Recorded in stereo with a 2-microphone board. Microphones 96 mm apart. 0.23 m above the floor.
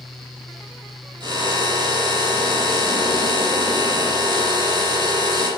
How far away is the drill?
About 8.5 m.